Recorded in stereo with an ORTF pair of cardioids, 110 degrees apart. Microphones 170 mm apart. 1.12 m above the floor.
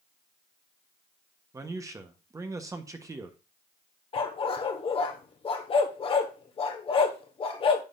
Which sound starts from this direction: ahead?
A man speaking, at 1.5 s.